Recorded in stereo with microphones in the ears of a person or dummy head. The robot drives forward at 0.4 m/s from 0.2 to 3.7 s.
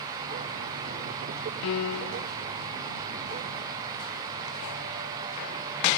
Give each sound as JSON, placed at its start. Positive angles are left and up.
{"t": 1.6, "sound": "a piano", "side_deg": 65, "distance_m": 0.6}